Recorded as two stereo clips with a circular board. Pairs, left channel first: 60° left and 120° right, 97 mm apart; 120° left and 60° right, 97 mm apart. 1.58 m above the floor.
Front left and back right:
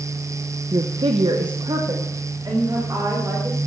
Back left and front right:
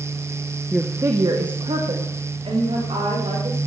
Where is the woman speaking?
150° right, 0.9 m; by 3.6 s 65° right, 4.5 m.